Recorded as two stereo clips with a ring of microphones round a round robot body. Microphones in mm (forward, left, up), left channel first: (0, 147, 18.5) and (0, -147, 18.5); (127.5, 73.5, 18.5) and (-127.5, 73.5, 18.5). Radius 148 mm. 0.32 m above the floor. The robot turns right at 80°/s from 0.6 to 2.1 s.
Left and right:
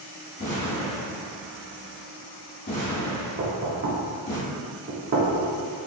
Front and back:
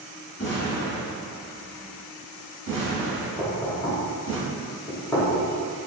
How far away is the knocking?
About 0.7 m.